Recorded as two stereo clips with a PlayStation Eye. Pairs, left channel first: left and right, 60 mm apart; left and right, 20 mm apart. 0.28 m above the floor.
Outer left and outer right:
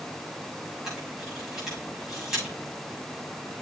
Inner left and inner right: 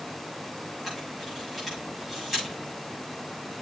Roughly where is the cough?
No cough in this recording.